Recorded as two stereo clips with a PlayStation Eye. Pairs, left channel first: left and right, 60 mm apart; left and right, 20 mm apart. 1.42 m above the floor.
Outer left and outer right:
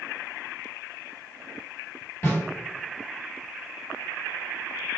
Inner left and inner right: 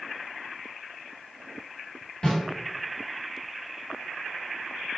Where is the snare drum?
50° left (ahead or behind), 2.0 m.